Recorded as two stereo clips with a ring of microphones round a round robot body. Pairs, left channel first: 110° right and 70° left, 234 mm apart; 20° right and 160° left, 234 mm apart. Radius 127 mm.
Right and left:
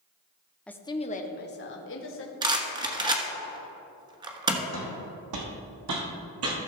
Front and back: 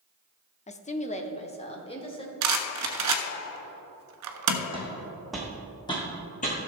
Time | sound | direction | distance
0.7 | a woman speaking | 30° right | 0.7 m
2.4 | a rattle | 140° left | 1.1 m
4.7 | footsteps | 90° left | 1.9 m